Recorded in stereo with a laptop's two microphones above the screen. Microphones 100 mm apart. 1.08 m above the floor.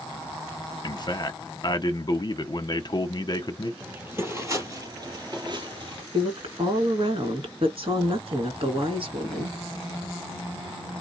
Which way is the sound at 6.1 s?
55° right (ahead or behind).